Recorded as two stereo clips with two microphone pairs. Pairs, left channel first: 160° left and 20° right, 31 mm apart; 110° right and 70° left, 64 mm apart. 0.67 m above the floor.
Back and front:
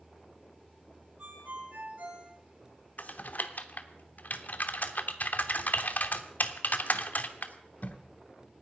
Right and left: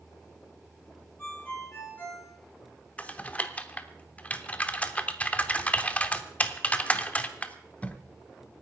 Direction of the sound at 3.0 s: 175° right.